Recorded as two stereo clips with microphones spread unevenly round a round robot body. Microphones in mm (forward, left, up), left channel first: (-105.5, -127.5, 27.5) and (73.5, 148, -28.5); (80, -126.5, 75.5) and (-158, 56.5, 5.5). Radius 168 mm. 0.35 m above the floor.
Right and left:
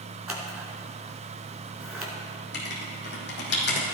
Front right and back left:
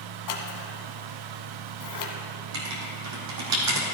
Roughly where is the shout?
I don't hear a shout.